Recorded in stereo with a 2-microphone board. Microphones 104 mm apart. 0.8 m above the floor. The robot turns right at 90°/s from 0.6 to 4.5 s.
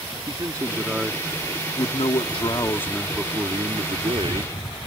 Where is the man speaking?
45° right; by 4.8 s 50° right.